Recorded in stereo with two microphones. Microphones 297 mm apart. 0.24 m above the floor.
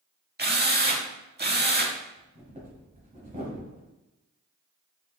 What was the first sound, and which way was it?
A drill, 35° right (ahead or behind).